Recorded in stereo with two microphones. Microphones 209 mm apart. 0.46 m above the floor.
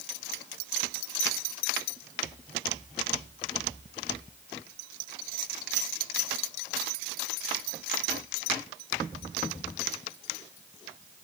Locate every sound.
Only background noise.